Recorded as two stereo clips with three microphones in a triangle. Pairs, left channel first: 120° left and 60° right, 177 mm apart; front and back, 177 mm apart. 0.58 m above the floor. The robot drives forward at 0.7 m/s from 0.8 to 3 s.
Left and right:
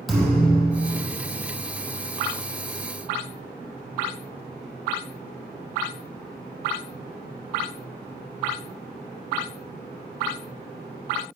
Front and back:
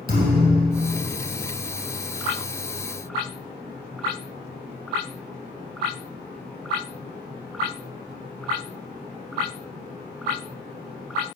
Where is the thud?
150° right, 4 m.